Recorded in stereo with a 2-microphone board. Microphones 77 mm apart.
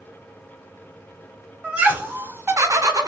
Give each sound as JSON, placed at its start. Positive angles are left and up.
{"t": 1.6, "sound": "laughter", "side_deg": -15, "distance_m": 1.1}